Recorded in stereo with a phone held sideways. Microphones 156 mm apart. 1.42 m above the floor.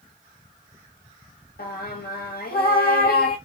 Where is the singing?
70° left (ahead or behind), 0.9 m.